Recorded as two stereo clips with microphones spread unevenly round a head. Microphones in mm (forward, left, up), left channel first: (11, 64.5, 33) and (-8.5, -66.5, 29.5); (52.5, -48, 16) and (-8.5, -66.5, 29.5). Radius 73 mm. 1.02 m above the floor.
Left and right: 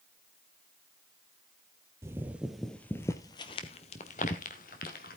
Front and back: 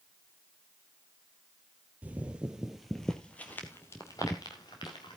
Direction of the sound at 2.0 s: 160° right.